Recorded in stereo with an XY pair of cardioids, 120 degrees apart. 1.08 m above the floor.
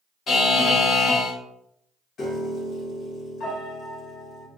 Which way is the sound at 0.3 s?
40° left.